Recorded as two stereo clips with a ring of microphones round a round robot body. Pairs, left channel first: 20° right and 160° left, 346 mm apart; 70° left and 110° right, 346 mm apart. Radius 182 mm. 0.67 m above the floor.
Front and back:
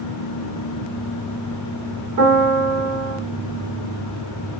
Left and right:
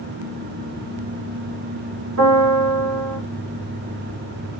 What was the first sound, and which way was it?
A piano, 165° right.